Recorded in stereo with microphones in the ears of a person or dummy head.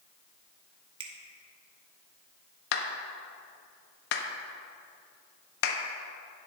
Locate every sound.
1.0 s a finger snap: 35° right (ahead or behind), 1.7 m
2.7 s a clap: 70° left (ahead or behind), 1.1 m